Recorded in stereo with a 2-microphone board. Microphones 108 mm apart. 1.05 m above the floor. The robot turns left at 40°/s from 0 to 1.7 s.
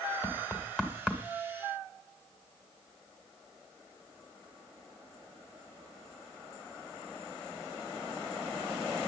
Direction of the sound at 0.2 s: 25° left (ahead or behind).